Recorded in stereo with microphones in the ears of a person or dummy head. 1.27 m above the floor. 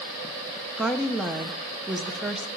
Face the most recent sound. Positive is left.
turn(degrees=-5)  # may be behind; listen again after turning